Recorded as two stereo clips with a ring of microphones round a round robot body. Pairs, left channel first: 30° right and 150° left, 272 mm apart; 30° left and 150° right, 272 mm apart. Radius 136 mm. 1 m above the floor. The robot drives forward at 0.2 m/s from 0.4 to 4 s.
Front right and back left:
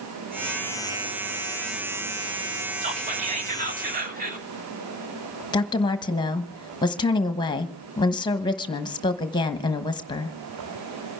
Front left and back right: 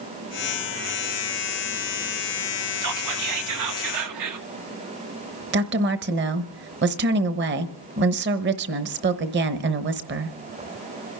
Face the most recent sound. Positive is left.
turn(degrees=-105)